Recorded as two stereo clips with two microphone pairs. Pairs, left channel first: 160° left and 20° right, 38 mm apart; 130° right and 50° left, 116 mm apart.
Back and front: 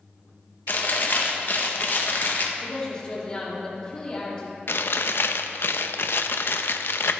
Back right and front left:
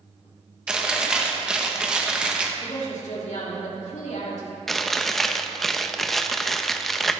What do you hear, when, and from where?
0.7 s chewing: 135° left, 1.2 m
2.6 s a woman speaking: 130° right, 3 m
4.7 s chewing: 145° left, 0.6 m